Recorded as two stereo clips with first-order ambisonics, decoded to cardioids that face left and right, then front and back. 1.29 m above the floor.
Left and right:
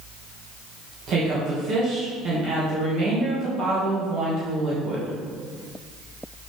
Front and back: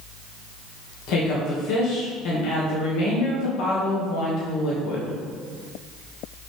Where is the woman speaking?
35° right, 1.2 m.